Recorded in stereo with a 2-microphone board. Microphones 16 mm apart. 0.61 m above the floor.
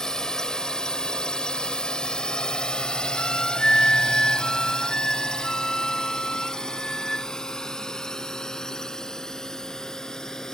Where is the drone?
40° left (ahead or behind).